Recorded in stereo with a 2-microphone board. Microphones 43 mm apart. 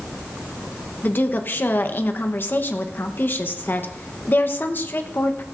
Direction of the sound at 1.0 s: 55° left (ahead or behind).